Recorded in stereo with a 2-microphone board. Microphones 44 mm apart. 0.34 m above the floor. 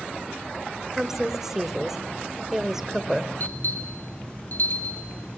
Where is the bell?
50° left (ahead or behind), 3.5 m.